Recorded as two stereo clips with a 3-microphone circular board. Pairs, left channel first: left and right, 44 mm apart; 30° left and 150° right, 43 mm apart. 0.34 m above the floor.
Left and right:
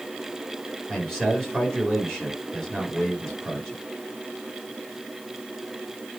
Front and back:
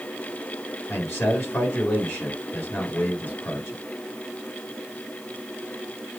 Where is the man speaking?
10° left, 5 m.